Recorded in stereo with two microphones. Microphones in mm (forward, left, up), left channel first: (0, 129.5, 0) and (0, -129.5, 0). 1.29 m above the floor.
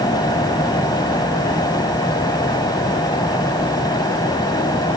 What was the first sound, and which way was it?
Only background noise.